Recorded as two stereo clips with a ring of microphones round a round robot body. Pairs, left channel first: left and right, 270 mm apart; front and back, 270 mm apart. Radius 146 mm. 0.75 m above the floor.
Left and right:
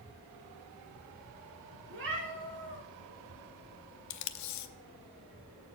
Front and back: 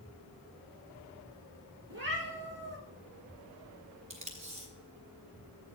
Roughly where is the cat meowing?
Behind right.